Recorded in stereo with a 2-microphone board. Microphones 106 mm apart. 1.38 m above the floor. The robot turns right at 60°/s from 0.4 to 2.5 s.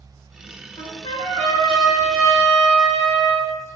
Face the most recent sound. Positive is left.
turn(degrees=170)